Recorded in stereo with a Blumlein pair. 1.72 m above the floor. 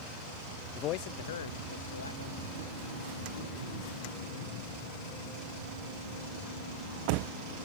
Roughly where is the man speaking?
Ahead left.